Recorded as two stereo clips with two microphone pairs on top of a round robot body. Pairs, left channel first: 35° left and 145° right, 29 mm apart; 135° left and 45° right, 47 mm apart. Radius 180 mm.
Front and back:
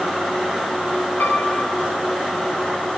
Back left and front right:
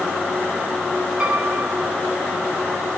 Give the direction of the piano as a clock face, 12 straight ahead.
11 o'clock.